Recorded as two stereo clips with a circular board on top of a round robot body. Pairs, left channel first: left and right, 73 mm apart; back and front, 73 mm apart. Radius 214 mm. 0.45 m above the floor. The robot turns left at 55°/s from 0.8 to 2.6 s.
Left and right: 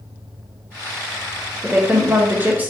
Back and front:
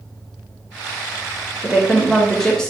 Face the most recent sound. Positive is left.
turn(degrees=-115)